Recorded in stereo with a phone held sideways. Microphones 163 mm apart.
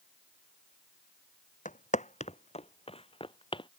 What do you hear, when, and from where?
1.6 s footsteps: 50° left (ahead or behind); by 3.7 s 30° left (ahead or behind)